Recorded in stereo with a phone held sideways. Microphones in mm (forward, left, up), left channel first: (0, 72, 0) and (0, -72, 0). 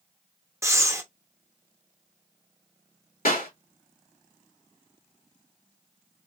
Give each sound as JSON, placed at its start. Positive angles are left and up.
{"t": 0.6, "sound": "breathing", "side_deg": -20, "distance_m": 0.7}
{"t": 3.2, "sound": "a clap", "side_deg": 85, "distance_m": 2.5}